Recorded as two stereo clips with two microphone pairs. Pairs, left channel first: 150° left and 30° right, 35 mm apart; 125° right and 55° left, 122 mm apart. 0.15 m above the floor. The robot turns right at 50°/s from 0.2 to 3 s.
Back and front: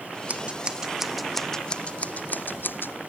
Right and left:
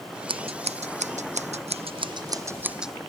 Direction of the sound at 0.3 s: 15° left.